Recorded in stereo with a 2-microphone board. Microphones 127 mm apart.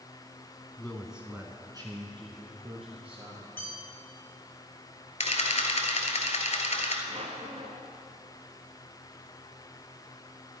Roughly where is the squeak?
Right.